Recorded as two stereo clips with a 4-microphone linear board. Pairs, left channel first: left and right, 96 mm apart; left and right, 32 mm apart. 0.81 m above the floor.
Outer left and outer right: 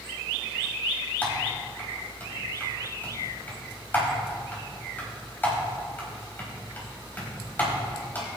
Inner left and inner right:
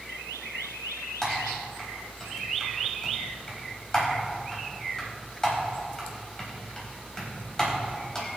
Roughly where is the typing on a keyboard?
Centre.